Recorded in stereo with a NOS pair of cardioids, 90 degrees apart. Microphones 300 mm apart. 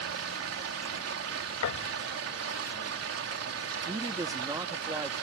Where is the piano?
65° left.